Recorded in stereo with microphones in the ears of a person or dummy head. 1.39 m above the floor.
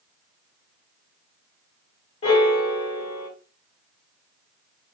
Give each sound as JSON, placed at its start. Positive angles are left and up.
{"t": 2.2, "sound": "a piano", "side_deg": 30, "distance_m": 1.5}